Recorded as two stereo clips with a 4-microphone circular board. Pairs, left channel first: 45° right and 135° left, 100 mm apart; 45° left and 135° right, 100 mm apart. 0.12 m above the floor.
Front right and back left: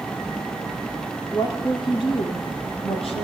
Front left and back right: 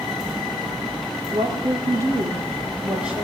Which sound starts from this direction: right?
A woman speaking, at 1.3 s.